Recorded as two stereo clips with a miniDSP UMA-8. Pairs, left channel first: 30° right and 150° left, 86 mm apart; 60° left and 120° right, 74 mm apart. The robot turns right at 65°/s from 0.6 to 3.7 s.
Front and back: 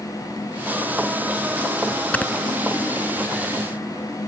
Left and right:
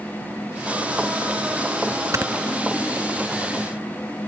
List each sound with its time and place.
2.1 s snoring: 100° right; by 2.3 s 85° right